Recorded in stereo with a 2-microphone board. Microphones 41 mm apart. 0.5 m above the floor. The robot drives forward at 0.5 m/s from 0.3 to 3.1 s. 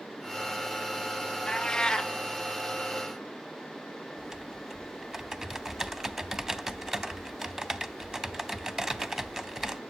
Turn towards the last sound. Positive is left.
turn(degrees=-15)  # may be behind; listen again after turning